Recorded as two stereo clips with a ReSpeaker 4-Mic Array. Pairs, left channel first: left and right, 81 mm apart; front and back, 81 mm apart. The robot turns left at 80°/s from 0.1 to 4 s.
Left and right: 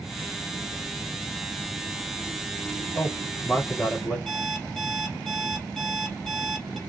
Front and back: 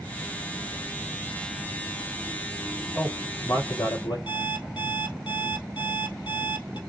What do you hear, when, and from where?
3.0 s a man speaking: 80° left, 4 m; by 4.2 s 5° right, 4 m
4.3 s an alarm clock: 5° left, 2 m